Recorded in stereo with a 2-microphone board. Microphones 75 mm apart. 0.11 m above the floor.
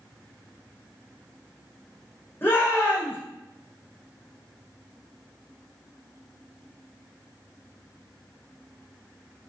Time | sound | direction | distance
2.4 | a shout | 25° left (ahead or behind) | 4.5 m